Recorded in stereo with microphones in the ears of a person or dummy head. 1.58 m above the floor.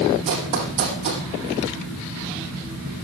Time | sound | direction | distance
0.3 | running footsteps | 35° right (ahead or behind) | 4 m